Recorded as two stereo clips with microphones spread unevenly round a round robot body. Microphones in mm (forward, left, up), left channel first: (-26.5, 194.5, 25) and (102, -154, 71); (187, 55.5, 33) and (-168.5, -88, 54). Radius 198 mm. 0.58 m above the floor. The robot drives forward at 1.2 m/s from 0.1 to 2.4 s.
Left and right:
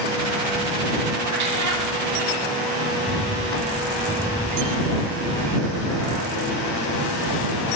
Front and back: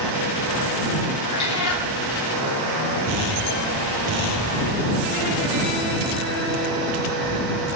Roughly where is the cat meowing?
Ahead right.